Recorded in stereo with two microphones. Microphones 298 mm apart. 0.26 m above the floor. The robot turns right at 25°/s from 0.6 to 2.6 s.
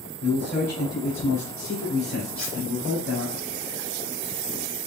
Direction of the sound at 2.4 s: 60° right (ahead or behind).